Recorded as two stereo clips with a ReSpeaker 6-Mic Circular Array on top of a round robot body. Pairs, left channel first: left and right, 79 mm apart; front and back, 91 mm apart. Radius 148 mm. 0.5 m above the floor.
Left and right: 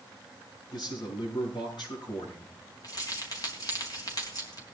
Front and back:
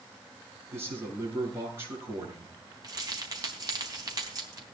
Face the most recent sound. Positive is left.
turn(degrees=135)